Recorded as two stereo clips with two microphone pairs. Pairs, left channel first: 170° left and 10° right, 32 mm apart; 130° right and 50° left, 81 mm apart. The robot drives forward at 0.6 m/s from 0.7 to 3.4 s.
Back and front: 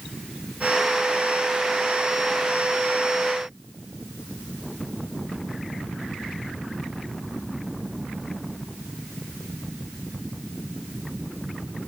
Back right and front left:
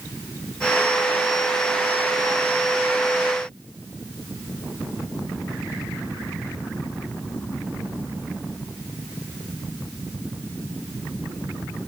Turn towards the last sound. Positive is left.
No sound to turn to.